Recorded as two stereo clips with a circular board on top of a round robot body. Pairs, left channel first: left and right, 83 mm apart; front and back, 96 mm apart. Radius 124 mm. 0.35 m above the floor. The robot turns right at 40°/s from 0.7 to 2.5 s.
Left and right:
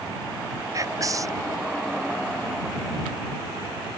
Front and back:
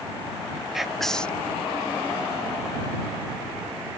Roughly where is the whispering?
Right.